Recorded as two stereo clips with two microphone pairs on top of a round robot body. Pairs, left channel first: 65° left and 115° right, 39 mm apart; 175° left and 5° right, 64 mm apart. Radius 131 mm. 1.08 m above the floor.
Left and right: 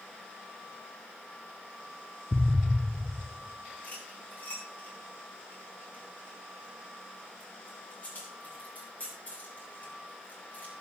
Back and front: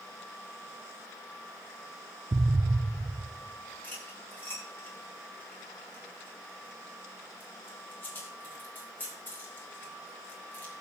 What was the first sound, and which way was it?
An explosion, 30° left.